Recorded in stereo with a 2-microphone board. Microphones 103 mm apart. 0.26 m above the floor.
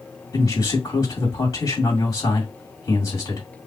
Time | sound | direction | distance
0.3 | a man speaking | 35° left (ahead or behind) | 2 m